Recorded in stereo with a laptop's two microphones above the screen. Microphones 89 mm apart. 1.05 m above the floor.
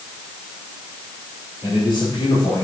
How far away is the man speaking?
About 4 m.